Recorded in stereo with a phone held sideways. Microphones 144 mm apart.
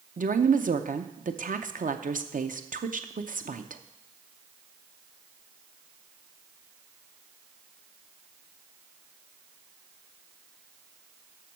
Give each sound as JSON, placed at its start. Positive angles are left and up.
{"t": 0.2, "sound": "a woman speaking", "side_deg": -65, "distance_m": 0.7}